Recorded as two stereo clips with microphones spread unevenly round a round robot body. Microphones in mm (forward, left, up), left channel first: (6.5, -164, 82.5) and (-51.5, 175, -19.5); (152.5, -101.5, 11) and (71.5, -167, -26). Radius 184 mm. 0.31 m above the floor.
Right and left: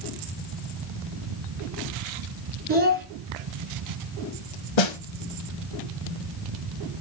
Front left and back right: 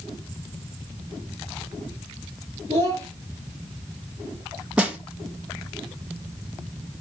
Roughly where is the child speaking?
Behind.